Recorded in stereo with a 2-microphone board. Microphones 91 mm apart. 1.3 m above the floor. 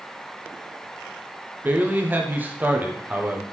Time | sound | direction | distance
1.6 | a man speaking | 20° right (ahead or behind) | 0.6 m